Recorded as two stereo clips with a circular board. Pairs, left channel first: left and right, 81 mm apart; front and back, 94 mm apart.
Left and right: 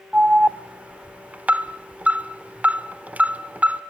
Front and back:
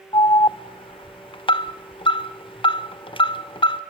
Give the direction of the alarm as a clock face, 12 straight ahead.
1 o'clock.